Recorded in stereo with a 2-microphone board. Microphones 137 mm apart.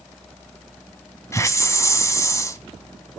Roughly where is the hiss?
Left.